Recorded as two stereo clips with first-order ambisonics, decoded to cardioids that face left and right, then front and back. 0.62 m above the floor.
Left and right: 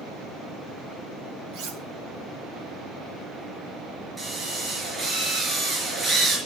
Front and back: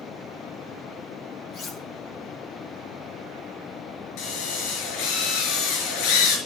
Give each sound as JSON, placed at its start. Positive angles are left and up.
{"t": 1.5, "sound": "cutlery clinking", "azimuth_deg": -65, "distance_m": 2.5}
{"t": 4.2, "sound": "a drill", "azimuth_deg": -15, "distance_m": 5.0}